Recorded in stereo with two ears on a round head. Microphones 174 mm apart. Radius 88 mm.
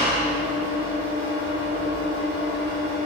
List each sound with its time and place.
0.0 s an engine running: 30° left (ahead or behind), 1.3 m